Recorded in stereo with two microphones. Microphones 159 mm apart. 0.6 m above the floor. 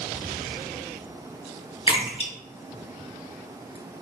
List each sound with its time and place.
1.9 s a splash: 35° left (ahead or behind), 1.1 m